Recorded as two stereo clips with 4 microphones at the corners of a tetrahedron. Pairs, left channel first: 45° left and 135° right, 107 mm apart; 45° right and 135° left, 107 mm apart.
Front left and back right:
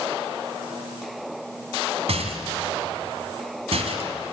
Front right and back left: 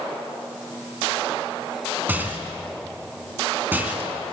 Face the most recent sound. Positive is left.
turn(degrees=-155)